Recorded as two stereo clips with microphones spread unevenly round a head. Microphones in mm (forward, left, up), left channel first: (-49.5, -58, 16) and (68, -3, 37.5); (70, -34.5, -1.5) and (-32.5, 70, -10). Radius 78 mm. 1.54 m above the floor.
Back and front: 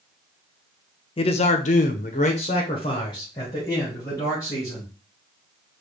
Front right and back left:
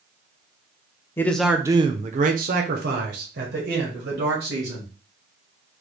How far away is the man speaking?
About 0.5 m.